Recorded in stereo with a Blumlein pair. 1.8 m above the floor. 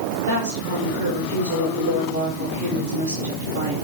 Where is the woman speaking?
60° right, 3.5 m.